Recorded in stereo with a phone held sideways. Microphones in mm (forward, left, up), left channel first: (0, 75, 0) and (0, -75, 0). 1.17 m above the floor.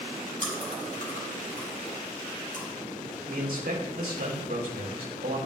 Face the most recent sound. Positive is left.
turn(degrees=-80)